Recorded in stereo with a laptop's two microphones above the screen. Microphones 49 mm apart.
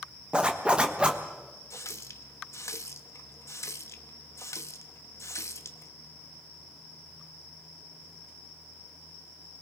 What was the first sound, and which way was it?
A zipper, 20° right (ahead or behind).